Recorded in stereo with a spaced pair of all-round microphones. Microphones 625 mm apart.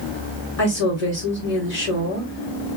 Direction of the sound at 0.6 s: 70° left (ahead or behind).